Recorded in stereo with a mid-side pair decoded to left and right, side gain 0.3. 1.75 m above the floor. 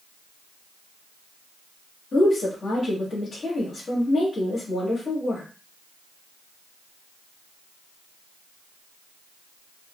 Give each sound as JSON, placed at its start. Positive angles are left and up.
{"t": 2.1, "sound": "a woman speaking", "azimuth_deg": 70, "distance_m": 2.0}